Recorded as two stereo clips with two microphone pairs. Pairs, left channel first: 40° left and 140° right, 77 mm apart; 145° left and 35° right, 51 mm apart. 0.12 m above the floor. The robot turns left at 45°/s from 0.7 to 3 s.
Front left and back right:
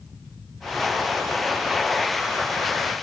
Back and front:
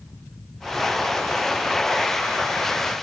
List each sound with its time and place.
Only background noise.